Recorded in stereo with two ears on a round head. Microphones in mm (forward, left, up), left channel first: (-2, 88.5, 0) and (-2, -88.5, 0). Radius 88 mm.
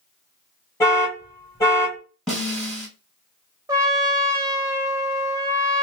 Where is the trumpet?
15° right (ahead or behind), 0.8 m.